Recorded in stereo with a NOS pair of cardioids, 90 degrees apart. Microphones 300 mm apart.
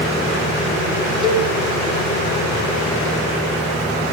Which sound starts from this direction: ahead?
A cowbell, at 1.2 s.